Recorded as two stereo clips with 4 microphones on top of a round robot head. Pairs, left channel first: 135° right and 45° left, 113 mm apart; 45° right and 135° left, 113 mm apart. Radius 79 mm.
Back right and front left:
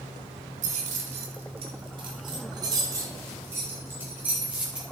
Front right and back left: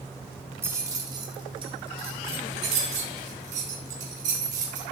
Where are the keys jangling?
65° left, 1.5 m; by 4.8 s 125° left, 3 m.